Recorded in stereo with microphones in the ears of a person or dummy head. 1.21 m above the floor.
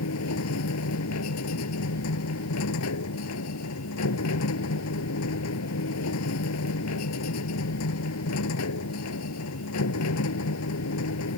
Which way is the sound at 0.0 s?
85° left.